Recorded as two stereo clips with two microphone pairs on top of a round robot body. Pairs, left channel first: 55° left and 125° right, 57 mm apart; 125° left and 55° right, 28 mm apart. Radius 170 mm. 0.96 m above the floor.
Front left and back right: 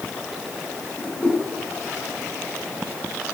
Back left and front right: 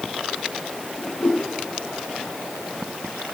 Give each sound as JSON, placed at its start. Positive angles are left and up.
{"t": 1.0, "sound": "a whoosh", "azimuth_deg": 120, "distance_m": 1.9}